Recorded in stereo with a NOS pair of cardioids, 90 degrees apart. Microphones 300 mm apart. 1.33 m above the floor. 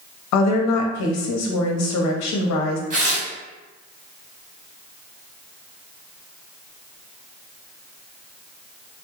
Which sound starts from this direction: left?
A woman speaking, at 0.3 s.